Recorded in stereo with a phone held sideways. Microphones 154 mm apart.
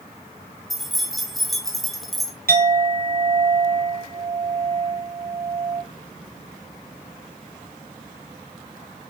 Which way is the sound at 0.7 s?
Centre (ahead or behind).